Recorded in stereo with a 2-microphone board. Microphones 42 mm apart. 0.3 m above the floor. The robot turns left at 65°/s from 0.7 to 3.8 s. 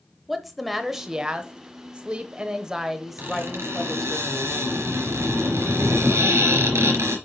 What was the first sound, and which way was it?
A woman speaking, 5° right (ahead or behind).